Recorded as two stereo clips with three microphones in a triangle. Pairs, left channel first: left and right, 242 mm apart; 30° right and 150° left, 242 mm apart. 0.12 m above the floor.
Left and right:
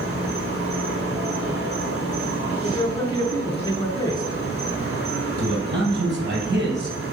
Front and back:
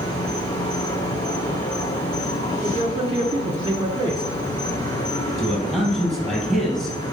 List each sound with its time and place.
0.0 s an insect: 100° right, 1.9 m
2.6 s a man speaking: 130° left, 1.1 m
5.4 s a man speaking: 120° right, 3.5 m